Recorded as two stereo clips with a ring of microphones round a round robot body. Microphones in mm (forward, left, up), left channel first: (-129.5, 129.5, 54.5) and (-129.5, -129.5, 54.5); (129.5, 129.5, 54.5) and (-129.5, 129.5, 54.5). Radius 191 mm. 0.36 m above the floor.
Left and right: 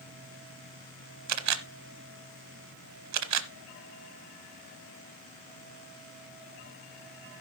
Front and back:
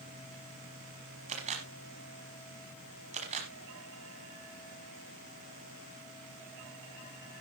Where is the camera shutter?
110° right, 0.9 m.